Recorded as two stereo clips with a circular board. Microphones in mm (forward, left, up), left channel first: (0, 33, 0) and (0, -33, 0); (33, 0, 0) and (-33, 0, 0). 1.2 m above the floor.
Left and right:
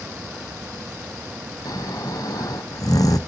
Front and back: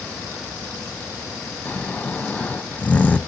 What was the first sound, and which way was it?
Snoring, 70° left.